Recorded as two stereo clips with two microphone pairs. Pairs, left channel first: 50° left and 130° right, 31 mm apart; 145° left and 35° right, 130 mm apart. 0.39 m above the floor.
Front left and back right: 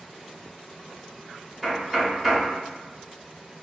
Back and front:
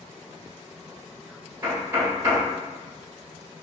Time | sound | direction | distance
1.6 | knocking | 50° right | 1.2 m